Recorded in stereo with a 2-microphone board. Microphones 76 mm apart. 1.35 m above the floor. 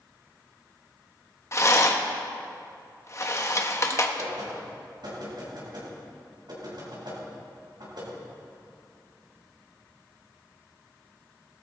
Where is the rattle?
40° left (ahead or behind), 1.1 m.